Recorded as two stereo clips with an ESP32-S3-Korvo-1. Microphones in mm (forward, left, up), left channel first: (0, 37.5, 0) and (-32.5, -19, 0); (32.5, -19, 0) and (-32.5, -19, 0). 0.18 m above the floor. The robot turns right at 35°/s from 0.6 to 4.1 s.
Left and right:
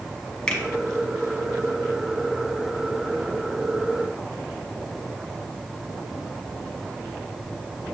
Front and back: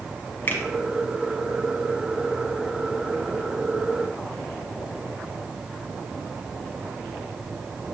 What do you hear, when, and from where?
0.5 s a finger snap: 5° right, 1.1 m